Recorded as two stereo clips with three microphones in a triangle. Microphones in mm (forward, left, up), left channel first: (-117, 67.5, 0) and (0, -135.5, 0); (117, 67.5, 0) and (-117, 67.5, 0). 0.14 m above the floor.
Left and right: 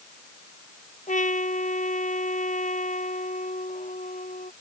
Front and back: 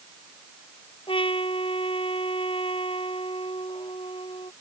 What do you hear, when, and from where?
1.1 s a trumpet: 65° left